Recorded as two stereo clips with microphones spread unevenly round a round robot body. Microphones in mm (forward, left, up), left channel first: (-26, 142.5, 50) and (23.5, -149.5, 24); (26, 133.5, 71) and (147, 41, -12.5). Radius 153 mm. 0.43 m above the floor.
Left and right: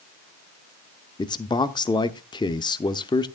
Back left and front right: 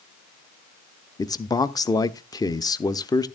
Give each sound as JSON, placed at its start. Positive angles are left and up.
{"t": 1.2, "sound": "a man speaking", "azimuth_deg": 35, "distance_m": 0.7}